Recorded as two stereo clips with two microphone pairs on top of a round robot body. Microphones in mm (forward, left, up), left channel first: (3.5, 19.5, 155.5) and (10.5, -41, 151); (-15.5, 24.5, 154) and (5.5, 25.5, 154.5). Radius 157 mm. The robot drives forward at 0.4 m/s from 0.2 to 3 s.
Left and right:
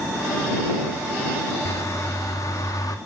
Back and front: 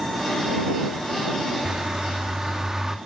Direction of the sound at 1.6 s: 55° left.